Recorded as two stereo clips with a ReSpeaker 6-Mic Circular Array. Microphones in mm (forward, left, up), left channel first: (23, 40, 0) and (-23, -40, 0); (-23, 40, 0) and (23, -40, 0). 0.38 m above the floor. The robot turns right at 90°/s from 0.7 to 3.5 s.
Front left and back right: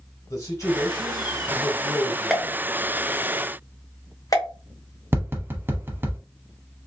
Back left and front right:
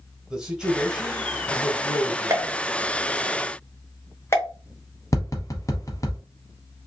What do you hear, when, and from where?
0.3 s a man speaking: 20° left, 1.3 m; by 2.6 s 170° right, 1.3 m
2.3 s a pop: 35° right, 0.8 m; by 4.5 s 75° left, 0.8 m
5.1 s tapping: 175° left, 0.8 m